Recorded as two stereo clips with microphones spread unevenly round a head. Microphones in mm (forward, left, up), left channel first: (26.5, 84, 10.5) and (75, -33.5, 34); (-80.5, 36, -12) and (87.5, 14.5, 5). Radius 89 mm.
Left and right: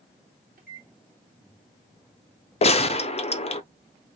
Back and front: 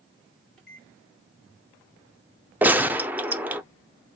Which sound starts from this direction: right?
A microwave, at 0.6 s.